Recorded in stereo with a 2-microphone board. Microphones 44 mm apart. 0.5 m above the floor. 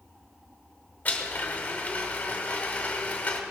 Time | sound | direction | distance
1.1 | a blender | 35° left (ahead or behind) | 1.8 m